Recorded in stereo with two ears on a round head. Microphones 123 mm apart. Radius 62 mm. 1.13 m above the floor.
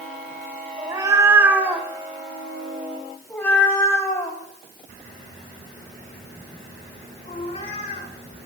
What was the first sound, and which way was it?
A cat meowing, 25° right (ahead or behind).